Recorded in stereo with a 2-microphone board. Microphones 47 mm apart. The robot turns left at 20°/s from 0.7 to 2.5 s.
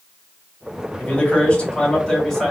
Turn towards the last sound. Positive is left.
turn(degrees=5)